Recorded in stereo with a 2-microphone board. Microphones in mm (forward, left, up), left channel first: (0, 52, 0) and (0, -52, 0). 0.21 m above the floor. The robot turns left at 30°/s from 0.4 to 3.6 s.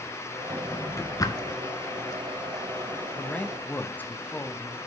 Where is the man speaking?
10° left (ahead or behind), 1.1 m; by 4.8 s 15° left (ahead or behind), 1.1 m.